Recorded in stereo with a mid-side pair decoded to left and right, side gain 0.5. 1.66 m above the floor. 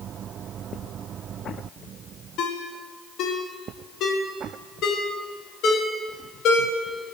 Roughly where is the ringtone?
Ahead left.